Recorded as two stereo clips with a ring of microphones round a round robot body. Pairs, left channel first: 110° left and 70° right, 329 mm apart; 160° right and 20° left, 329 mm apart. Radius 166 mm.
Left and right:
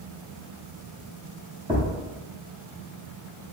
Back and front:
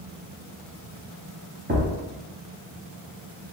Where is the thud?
10° right, 0.7 m.